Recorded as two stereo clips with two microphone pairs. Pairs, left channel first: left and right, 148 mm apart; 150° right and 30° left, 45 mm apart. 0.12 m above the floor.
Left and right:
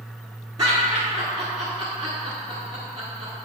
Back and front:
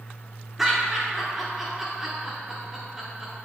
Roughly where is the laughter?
Ahead right.